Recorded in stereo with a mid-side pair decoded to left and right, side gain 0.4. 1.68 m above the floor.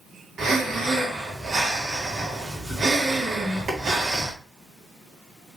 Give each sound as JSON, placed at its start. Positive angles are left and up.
{"t": 0.4, "sound": "breathing", "azimuth_deg": -55, "distance_m": 1.7}